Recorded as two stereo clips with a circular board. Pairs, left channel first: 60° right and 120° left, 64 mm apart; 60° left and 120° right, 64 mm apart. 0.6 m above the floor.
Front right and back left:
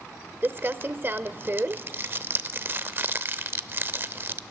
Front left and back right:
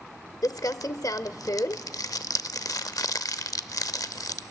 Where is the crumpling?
70° left, 0.6 m.